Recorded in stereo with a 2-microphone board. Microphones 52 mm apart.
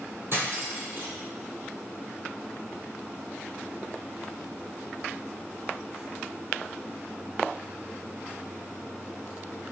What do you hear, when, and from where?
0.3 s cutlery clinking: 50° right (ahead or behind), 2.5 m